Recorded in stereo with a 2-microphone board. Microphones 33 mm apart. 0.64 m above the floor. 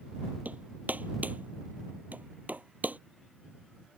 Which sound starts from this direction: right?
Hammering, at 0.5 s.